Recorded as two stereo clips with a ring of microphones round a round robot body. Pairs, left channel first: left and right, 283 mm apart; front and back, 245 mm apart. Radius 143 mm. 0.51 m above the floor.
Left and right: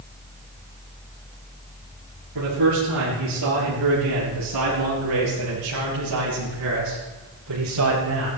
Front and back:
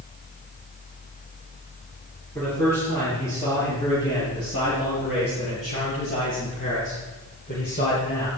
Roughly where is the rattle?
I don't hear a rattle.